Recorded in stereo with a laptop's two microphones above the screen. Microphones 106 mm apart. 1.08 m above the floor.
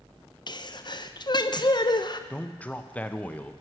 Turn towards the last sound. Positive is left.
turn(degrees=15)  # may be behind; listen again after turning